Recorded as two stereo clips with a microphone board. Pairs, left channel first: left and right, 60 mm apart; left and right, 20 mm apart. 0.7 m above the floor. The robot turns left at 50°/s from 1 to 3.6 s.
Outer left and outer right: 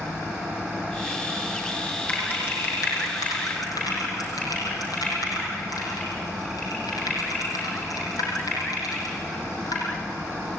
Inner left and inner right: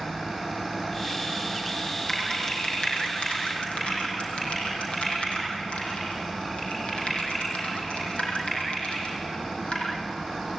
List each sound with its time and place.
2.1 s typing on a keyboard: 25° left (ahead or behind), 7 m; by 9.8 s 80° left, 7 m